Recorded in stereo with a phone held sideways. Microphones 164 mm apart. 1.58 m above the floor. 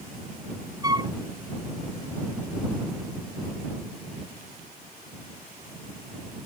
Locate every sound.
0.8 s a flute: 25° right (ahead or behind)